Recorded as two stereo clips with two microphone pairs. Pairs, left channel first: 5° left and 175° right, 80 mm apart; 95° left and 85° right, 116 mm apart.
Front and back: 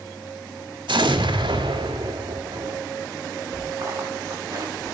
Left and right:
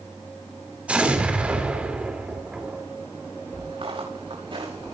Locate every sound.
0.9 s an explosion: 165° right, 3 m
3.5 s footsteps: 125° right, 8 m; by 5.0 s 130° right, 7.5 m